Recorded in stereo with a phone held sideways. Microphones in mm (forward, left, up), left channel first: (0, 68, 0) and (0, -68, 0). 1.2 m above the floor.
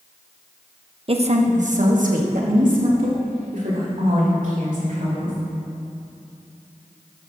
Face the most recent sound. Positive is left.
turn(degrees=-90)